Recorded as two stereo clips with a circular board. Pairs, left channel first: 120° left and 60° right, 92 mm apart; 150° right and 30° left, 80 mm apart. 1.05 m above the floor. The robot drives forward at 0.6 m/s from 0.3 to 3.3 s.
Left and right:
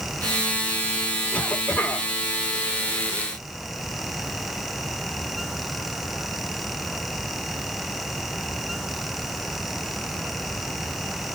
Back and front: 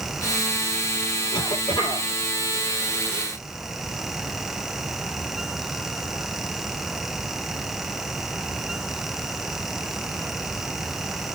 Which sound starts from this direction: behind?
A cough, at 1.3 s.